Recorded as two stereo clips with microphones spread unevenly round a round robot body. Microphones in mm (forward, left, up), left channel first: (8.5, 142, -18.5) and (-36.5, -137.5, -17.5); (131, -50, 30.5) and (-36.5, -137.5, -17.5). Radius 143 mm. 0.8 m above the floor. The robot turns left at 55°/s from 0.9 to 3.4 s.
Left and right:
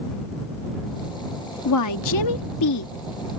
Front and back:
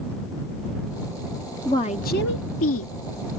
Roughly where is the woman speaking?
Behind left.